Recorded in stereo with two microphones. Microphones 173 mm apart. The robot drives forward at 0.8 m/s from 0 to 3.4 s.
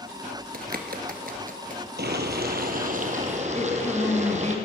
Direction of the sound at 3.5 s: 15° left (ahead or behind).